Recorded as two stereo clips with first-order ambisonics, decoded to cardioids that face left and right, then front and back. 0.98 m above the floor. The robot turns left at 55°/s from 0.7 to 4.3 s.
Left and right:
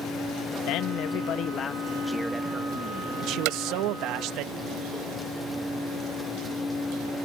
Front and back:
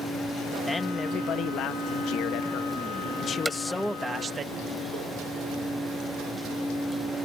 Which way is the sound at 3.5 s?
95° right.